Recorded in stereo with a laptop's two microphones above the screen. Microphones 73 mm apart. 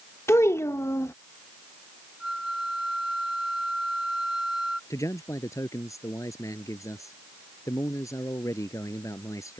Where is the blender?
I don't hear a blender.